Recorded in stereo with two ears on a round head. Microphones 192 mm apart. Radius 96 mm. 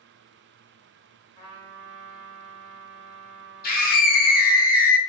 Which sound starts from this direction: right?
A trumpet, at 1.4 s.